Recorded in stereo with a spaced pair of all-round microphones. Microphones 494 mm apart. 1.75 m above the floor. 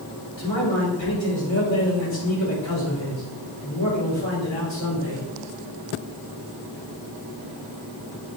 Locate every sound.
0.4 s a man speaking: 70° left (ahead or behind), 4 m